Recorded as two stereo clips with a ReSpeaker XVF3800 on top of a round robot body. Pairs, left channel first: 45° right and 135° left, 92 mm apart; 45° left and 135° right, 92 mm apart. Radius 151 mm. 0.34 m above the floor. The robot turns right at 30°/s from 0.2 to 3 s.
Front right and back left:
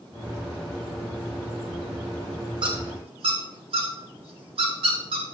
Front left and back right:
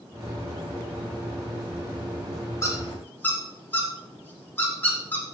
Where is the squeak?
105° left, 2 m; by 5.2 s 115° left, 2 m.